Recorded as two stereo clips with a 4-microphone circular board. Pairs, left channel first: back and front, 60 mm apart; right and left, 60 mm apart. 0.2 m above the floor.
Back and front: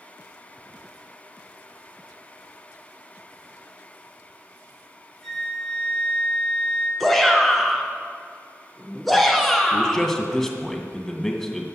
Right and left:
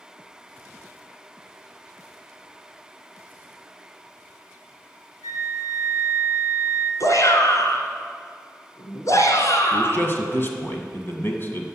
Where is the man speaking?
100° right, 1.7 m.